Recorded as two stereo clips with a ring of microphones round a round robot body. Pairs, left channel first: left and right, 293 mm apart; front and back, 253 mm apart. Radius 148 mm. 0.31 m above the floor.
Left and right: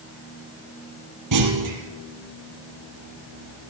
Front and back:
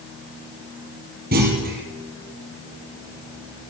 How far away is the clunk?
About 4.5 m.